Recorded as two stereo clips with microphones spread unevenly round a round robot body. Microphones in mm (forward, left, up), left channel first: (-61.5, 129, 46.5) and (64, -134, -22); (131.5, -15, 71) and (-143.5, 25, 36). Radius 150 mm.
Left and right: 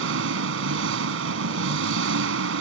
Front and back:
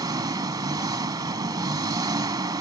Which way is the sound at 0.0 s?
110° right.